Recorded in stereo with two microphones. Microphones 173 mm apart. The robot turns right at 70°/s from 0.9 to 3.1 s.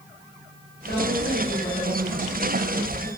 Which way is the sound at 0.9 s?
105° left.